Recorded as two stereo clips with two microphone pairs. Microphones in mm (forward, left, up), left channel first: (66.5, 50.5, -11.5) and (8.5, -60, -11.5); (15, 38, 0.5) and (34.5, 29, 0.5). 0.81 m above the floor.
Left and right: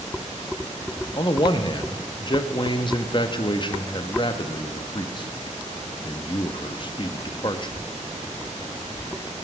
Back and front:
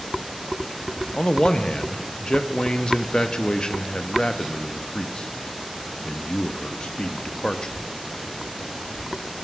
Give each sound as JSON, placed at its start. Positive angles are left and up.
{"t": 1.1, "sound": "a man speaking", "azimuth_deg": 105, "distance_m": 0.6}